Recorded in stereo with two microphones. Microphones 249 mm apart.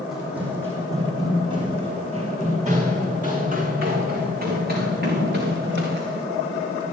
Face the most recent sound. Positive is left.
turn(degrees=-45)  # may be behind; listen again after turning